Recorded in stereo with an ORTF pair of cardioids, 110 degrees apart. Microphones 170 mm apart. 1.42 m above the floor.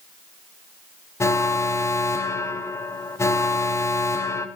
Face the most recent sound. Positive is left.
turn(degrees=15)